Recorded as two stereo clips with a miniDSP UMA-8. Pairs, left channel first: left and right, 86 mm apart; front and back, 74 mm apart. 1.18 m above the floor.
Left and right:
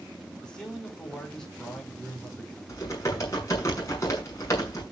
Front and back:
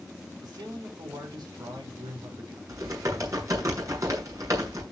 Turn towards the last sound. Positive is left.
turn(degrees=140)